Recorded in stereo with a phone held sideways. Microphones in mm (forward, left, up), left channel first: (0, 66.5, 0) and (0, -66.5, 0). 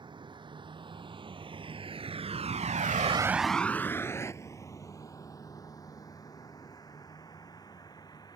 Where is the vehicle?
35° right (ahead or behind); by 8.4 s 30° left (ahead or behind).